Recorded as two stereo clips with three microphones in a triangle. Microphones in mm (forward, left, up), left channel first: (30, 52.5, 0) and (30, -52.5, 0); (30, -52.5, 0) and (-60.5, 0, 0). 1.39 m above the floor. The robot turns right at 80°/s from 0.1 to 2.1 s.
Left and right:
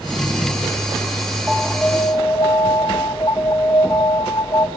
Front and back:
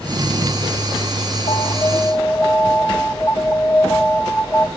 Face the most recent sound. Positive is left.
turn(degrees=40)